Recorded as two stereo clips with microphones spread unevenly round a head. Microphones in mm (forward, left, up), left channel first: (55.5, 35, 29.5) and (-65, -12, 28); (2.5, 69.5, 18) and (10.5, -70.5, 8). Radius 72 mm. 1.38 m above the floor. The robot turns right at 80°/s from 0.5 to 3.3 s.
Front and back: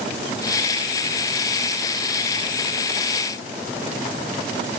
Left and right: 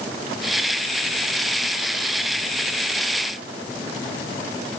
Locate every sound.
Only background noise.